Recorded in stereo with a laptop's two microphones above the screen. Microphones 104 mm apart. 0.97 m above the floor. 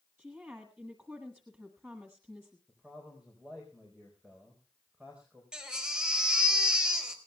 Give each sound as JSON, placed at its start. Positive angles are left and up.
{"t": 0.2, "sound": "a woman speaking", "side_deg": -20, "distance_m": 1.5}
{"t": 2.7, "sound": "a man speaking", "side_deg": -10, "distance_m": 4.0}
{"t": 5.5, "sound": "a baby crying", "side_deg": -10, "distance_m": 3.5}